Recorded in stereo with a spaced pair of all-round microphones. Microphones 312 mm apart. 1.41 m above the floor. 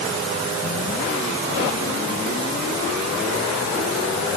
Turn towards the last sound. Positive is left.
No sound to turn to.